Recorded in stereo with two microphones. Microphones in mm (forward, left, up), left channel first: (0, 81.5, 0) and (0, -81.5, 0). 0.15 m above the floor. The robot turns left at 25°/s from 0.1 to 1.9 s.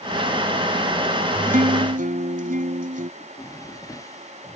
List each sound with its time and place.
1.5 s a guitar: 60° right (ahead or behind)
3.2 s a drawer: 20° left (ahead or behind)